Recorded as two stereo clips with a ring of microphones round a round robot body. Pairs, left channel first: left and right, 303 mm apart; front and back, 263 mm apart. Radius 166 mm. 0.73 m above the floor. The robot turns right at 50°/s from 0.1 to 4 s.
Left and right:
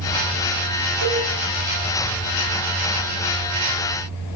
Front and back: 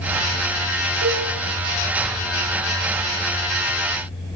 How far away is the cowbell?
About 6.5 m.